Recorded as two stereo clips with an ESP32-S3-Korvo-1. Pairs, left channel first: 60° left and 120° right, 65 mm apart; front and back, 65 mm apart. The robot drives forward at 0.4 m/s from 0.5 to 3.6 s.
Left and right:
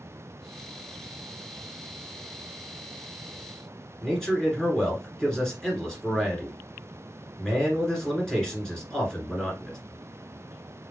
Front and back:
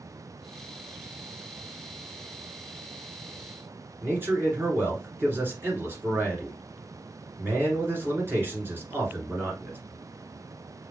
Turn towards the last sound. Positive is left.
turn(degrees=140)